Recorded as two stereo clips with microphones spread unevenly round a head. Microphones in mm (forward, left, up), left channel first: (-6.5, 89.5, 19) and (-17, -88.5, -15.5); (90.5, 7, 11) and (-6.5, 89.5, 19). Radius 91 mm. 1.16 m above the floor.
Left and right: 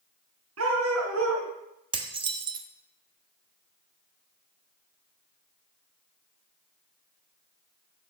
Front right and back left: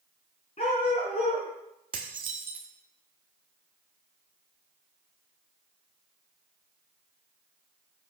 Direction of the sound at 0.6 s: 105° right.